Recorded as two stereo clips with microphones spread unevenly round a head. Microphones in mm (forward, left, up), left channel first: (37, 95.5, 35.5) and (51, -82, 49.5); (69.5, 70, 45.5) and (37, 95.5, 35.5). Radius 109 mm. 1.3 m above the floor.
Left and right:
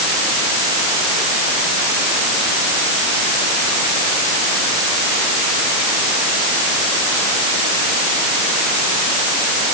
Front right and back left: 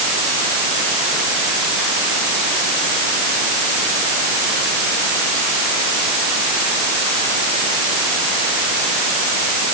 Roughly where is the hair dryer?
I don't hear a hair dryer.